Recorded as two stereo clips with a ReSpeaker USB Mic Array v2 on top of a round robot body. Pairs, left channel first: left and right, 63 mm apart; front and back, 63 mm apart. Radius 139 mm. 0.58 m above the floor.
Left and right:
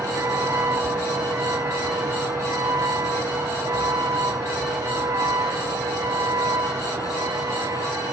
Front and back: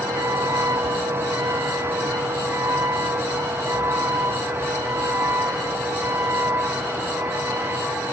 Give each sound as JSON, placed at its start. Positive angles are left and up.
{"t": 0.0, "sound": "a vehicle", "azimuth_deg": -140}